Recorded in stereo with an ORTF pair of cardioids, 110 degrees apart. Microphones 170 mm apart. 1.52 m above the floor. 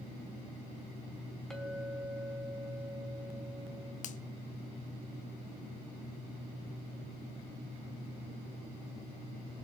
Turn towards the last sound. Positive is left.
turn(degrees=45)